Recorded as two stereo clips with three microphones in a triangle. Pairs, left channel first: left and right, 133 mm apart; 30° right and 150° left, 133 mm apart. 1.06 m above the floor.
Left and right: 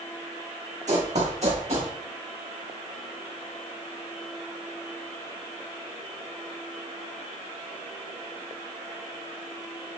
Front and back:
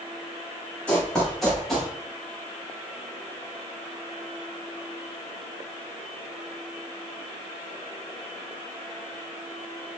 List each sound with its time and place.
0.9 s running footsteps: 110° right, 3 m; by 1.9 s 125° right, 3.5 m